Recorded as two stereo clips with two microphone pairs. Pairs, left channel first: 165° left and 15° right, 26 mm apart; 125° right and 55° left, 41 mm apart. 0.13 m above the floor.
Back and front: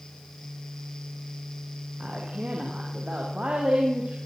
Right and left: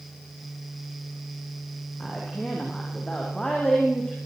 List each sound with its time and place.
2.0 s a woman speaking: 55° right, 8 m